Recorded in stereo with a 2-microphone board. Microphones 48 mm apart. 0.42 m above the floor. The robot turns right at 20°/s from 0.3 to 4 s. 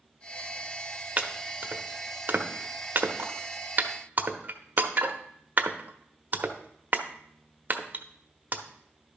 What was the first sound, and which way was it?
Chopping, 35° right (ahead or behind).